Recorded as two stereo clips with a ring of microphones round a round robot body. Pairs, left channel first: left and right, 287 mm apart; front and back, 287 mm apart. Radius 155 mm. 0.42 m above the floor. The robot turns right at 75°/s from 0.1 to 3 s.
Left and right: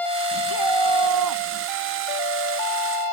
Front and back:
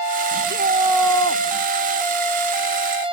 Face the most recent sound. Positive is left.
turn(degrees=60)